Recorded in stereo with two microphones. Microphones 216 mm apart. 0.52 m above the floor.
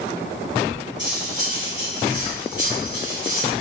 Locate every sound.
1.0 s cutlery clinking: 60° left (ahead or behind), 3 m